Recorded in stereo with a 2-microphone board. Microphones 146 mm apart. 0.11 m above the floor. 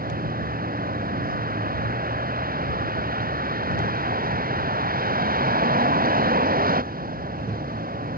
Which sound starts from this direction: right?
A vehicle, at 0.0 s.